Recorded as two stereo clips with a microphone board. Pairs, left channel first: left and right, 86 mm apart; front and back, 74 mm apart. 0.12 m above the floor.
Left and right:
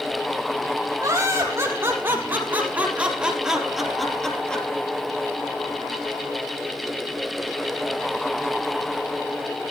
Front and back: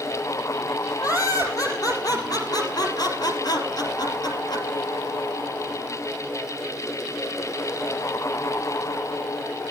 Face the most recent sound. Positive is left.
turn(degrees=15)